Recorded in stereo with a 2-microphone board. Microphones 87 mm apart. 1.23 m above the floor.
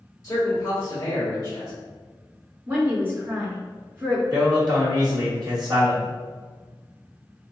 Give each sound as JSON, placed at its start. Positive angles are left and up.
{"t": 0.2, "sound": "a man speaking", "side_deg": 35, "distance_m": 1.7}
{"t": 2.7, "sound": "a woman speaking", "side_deg": -25, "distance_m": 1.9}
{"t": 4.3, "sound": "a man speaking", "side_deg": -50, "distance_m": 1.9}